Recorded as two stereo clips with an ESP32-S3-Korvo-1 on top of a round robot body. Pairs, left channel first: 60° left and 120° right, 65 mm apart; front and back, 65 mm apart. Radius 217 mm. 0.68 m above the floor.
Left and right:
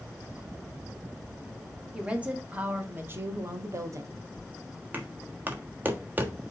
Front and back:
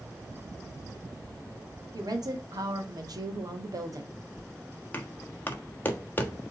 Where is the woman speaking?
165° left, 2.5 m; by 4.1 s 150° right, 1.6 m.